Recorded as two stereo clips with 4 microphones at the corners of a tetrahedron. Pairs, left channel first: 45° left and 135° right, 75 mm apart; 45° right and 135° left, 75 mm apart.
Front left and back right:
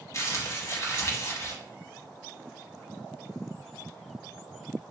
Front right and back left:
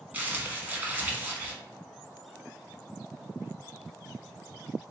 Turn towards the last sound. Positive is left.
turn(degrees=75)